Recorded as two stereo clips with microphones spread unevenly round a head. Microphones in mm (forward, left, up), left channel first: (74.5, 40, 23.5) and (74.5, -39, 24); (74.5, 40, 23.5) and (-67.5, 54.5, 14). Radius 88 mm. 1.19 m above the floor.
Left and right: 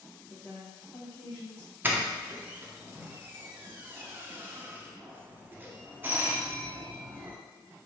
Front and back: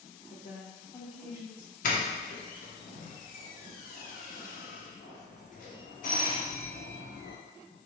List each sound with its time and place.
0.3 s a woman speaking: 50° left, 1.0 m; by 1.7 s 35° left, 1.6 m
1.8 s a doorbell: 25° right, 0.8 m